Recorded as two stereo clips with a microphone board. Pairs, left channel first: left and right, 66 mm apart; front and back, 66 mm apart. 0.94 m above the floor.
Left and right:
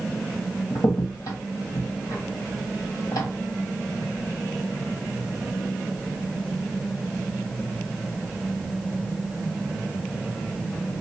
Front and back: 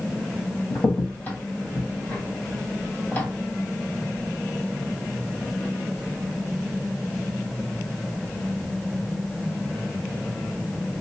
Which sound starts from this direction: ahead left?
A crack, at 0.7 s.